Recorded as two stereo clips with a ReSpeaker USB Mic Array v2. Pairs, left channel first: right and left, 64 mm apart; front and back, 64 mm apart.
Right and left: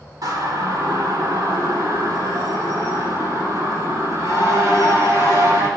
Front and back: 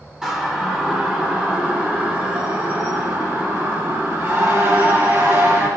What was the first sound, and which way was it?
A siren, 100° left.